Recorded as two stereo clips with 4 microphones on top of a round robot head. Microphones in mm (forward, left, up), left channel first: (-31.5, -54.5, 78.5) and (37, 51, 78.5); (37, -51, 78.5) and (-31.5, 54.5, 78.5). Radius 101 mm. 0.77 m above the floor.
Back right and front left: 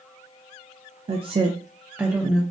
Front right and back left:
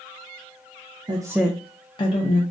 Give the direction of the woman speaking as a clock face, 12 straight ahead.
9 o'clock.